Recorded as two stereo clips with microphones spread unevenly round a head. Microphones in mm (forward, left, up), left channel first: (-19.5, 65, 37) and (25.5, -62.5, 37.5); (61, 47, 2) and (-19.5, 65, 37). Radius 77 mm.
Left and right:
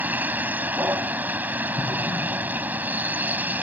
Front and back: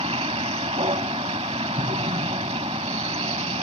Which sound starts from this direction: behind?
An explosion, at 1.8 s.